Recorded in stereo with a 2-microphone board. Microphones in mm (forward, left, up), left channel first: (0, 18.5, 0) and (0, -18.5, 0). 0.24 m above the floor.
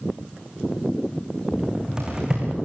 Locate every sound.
1.5 s a cupboard door: 20° right (ahead or behind), 7.5 m